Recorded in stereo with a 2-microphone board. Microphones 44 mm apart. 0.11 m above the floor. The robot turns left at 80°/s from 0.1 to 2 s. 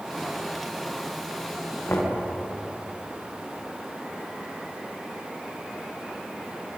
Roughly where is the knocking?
Left.